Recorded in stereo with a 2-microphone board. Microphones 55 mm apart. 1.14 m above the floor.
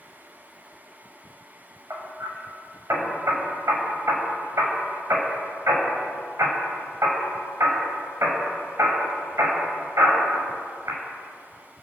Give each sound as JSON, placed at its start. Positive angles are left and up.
{"t": 1.9, "sound": "hammering", "side_deg": -55, "distance_m": 6.0}